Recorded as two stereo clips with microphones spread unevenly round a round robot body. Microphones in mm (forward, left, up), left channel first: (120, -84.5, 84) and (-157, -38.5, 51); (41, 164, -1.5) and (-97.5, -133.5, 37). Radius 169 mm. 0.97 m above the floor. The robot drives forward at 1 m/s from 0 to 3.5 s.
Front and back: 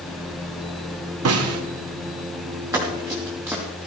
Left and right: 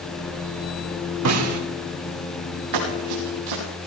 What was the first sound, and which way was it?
A snare drum, 155° right.